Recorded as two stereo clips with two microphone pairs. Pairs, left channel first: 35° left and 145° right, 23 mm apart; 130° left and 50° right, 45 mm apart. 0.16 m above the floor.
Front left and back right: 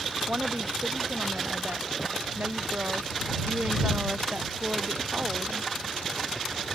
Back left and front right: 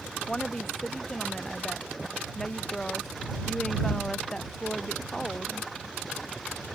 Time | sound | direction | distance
0.3 | a woman speaking | 150° right | ?